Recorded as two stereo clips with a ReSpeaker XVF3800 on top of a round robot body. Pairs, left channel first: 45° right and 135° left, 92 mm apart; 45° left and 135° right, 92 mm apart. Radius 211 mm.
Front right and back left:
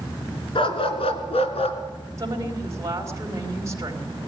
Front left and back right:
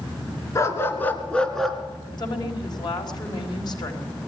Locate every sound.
0.6 s a dog barking: 15° right, 2 m; by 1.8 s 45° right, 2.0 m
2.2 s a woman speaking: 80° left, 4 m